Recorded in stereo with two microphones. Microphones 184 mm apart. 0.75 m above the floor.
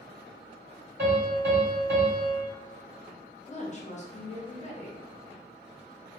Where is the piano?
65° right (ahead or behind), 2.0 m.